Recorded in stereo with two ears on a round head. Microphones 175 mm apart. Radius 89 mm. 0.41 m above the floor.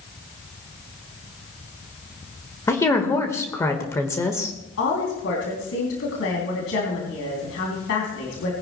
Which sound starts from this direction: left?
A woman speaking, at 4.8 s.